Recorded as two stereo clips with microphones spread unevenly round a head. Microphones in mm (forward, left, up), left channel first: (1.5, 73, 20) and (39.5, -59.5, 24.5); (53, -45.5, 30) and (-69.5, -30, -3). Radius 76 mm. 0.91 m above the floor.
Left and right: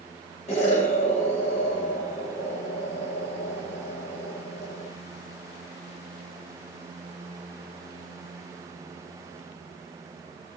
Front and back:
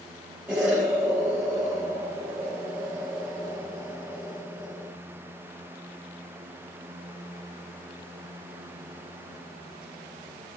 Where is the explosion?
105° left, 1.0 m.